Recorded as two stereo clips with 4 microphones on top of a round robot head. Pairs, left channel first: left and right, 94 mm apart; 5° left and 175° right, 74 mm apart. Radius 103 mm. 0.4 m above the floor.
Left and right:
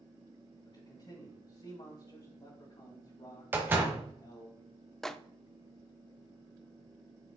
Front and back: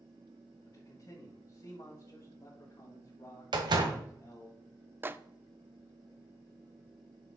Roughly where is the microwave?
Behind.